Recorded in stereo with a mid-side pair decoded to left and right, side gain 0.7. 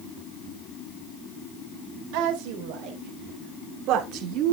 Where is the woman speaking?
70° right, 4 m; by 4.5 s 55° right, 2.5 m.